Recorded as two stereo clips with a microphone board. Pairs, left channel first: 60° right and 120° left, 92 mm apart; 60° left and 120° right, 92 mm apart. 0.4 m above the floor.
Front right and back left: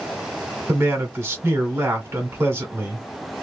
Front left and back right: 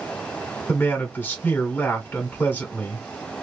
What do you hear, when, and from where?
0.7 s a man speaking: 100° left, 1.2 m